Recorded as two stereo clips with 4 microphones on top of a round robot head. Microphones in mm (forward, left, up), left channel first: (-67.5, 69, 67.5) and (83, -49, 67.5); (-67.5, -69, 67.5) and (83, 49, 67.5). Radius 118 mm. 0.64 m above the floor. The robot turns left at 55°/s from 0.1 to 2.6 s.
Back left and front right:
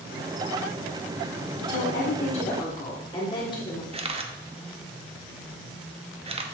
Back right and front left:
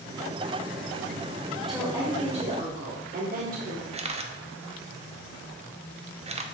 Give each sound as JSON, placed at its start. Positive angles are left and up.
{"t": 1.6, "sound": "a woman speaking", "azimuth_deg": 130, "distance_m": 1.5}
{"t": 3.9, "sound": "a camera shutter", "azimuth_deg": 5, "distance_m": 0.8}